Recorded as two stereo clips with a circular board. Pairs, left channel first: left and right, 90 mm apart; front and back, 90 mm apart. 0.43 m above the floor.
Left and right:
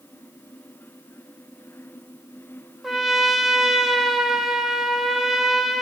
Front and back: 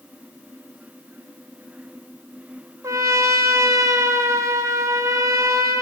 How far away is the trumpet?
About 0.6 m.